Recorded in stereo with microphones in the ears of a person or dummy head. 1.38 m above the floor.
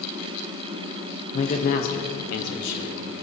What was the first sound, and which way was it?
A man speaking, 45° left (ahead or behind).